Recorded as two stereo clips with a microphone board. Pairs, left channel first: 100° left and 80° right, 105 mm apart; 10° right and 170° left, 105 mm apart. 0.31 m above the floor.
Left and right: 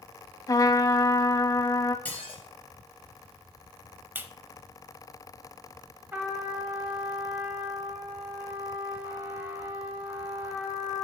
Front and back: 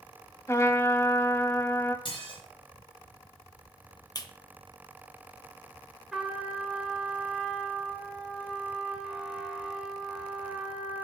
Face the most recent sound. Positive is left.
turn(degrees=-115)